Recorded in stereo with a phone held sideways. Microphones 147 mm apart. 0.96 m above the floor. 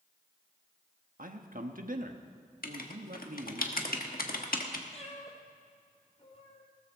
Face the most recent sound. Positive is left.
turn(degrees=45)  # may be behind; listen again after turning